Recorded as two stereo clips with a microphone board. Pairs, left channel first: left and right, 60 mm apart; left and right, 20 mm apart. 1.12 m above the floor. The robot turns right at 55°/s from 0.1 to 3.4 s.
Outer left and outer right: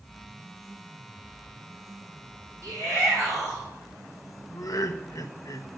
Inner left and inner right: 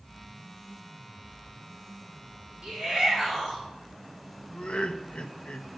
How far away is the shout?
About 5 m.